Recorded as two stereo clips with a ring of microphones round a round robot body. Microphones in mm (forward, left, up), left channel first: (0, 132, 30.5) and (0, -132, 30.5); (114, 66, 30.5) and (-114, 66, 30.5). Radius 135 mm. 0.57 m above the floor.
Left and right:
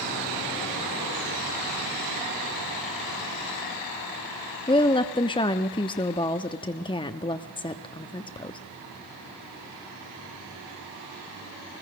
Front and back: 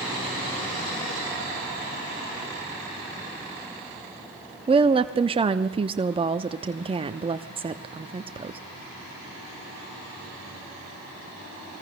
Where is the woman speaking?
140° left, 0.6 m.